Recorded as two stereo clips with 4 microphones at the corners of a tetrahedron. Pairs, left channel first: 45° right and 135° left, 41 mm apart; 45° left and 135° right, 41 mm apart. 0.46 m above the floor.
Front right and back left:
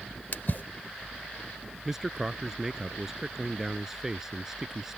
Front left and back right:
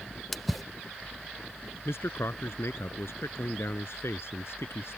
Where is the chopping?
No chopping in this recording.